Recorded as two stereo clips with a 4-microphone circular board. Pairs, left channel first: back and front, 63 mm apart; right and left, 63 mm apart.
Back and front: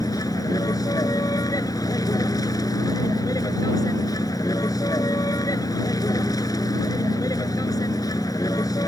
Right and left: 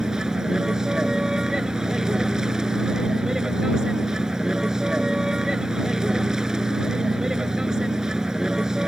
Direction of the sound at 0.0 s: 170° left.